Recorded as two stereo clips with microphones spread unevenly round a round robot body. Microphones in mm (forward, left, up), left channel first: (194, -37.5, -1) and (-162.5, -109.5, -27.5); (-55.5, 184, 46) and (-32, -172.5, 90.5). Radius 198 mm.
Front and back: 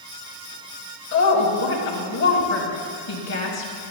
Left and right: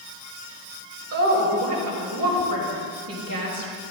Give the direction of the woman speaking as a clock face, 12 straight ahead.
1 o'clock.